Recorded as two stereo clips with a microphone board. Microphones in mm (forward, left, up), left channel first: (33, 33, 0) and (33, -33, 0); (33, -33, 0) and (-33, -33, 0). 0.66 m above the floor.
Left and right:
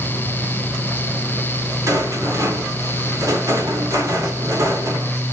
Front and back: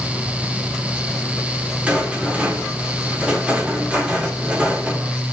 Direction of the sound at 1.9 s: 110° right.